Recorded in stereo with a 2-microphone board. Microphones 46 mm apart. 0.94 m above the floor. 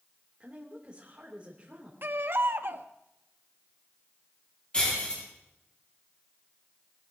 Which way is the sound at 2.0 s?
55° right (ahead or behind).